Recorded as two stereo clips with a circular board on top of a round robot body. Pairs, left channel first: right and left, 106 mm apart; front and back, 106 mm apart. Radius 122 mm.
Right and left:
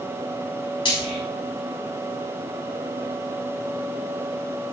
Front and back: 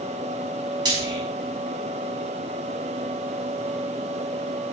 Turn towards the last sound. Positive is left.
turn(degrees=-130)